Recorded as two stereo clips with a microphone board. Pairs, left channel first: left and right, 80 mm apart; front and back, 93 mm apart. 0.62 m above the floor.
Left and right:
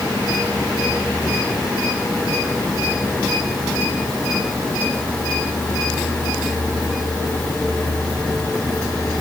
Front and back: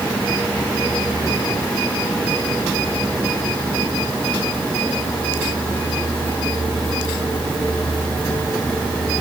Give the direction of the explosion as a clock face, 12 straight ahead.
I don't hear an explosion.